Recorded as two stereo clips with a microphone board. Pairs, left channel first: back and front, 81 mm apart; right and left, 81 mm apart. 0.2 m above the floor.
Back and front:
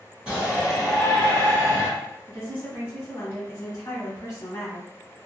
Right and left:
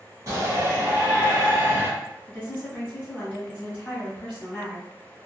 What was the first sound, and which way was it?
A shout, 75° left.